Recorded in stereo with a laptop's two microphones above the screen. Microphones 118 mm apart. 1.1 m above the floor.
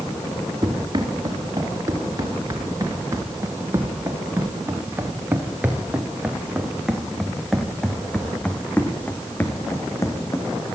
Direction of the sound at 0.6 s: 35° right (ahead or behind).